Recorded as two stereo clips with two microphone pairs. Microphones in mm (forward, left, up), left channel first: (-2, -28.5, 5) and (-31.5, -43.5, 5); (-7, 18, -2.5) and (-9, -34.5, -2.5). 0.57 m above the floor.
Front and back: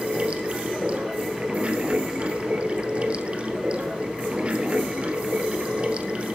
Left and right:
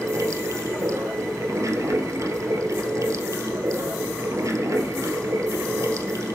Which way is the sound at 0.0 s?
100° right.